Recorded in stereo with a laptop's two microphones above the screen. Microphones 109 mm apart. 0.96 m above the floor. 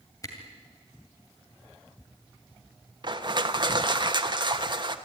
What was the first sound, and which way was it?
A camera shutter, 30° left (ahead or behind).